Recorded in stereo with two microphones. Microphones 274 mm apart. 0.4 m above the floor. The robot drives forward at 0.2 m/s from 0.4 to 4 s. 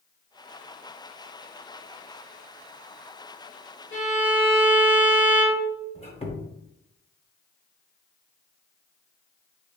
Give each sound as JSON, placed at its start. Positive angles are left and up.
{"t": 3.9, "sound": "a violin", "side_deg": 45, "distance_m": 1.6}
{"t": 6.0, "sound": "a squeak", "side_deg": 20, "distance_m": 0.7}